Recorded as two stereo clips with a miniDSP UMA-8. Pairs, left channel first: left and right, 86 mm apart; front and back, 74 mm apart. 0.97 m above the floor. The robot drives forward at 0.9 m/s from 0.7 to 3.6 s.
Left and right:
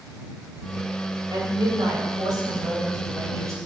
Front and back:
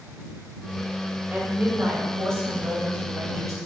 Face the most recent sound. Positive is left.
turn(degrees=-140)